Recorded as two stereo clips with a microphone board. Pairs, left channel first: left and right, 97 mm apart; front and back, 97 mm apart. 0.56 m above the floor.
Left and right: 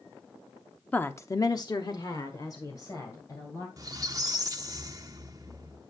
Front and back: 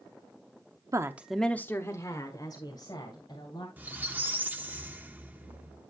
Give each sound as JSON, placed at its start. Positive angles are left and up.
{"t": 0.9, "sound": "a woman speaking", "azimuth_deg": 155, "distance_m": 0.8}
{"t": 3.8, "sound": "a squeak", "azimuth_deg": -115, "distance_m": 0.8}